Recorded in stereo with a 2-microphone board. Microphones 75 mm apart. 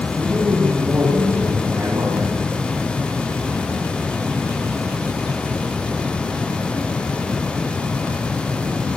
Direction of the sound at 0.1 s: 5° right (ahead or behind).